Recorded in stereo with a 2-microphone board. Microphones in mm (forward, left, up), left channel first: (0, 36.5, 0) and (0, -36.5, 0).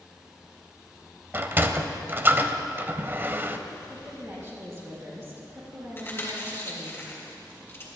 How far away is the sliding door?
About 0.6 m.